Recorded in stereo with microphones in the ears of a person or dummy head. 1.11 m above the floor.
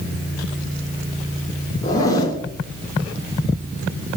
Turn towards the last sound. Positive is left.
turn(degrees=20)  # may be behind; listen again after turning